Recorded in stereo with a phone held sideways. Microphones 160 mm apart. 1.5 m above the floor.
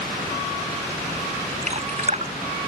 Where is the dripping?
45° right (ahead or behind).